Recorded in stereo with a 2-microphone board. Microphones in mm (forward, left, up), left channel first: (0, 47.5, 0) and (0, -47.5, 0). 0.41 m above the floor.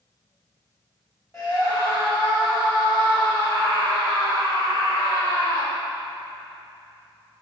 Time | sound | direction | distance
1.3 | a scream | 35° left (ahead or behind) | 1.9 m